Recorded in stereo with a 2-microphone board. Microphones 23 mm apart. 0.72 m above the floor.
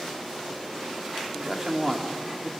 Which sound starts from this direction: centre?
A man speaking, at 1.3 s.